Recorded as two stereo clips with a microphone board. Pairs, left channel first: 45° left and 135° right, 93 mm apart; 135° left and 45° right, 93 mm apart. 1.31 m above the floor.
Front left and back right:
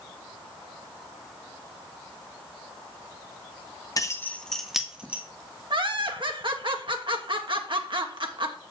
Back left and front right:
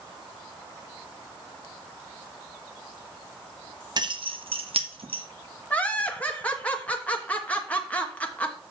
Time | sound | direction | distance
4.0 | keys jangling | 5° right | 0.8 m
5.7 | laughter | 150° right | 1.2 m